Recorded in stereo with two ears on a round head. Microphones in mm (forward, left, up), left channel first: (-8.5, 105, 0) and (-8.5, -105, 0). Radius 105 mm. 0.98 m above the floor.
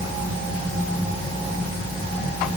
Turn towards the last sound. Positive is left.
No sound to turn to.